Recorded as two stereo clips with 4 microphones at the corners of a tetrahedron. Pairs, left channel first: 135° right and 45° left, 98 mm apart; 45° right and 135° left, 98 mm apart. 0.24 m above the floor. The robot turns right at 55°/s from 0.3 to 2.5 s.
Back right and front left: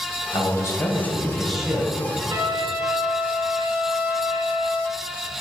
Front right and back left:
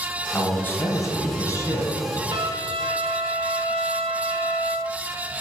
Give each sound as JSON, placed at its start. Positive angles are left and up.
{"t": 0.3, "sound": "a man speaking", "azimuth_deg": -115, "distance_m": 1.8}
{"t": 2.3, "sound": "a trumpet", "azimuth_deg": 90, "distance_m": 1.2}